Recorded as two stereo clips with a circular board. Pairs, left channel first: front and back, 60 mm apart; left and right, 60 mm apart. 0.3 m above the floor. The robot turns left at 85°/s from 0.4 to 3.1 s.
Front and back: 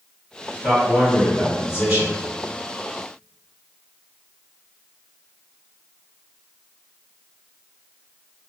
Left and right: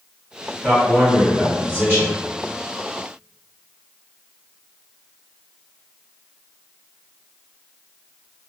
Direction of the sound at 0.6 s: 25° right.